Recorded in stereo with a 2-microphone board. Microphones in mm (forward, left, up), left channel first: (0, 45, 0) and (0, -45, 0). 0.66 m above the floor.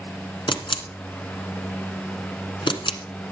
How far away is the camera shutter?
About 1.5 m.